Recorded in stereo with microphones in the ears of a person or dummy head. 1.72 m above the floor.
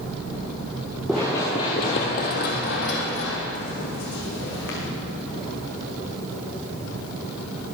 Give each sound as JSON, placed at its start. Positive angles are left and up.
{"t": 1.1, "sound": "running footsteps", "side_deg": 0, "distance_m": 1.8}